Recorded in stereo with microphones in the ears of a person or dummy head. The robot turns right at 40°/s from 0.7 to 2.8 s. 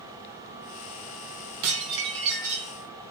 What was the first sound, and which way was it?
Dishes clattering, 80° right.